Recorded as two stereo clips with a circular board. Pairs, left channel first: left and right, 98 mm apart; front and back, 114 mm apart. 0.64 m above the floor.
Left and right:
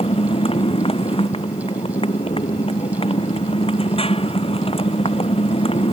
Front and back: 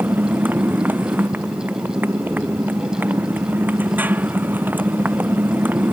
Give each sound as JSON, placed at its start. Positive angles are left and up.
{"t": 0.0, "sound": "a motorcycle", "azimuth_deg": 105}